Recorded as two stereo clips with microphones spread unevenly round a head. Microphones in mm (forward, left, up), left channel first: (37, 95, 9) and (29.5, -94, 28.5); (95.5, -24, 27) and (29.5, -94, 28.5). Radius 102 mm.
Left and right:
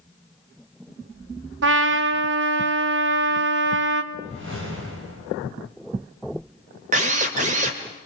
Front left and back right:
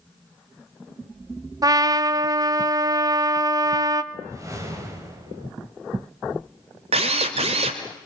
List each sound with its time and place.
1.6 s a trumpet: 90° right, 1.2 m
4.1 s a whoosh: 80° right, 4.5 m
6.9 s a drill: 145° right, 1.8 m